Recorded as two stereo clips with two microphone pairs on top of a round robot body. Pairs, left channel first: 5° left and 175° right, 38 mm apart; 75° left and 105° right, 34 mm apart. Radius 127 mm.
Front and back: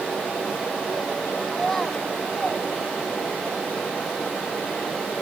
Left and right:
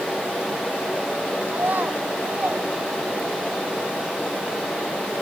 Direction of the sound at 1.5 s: 80° right.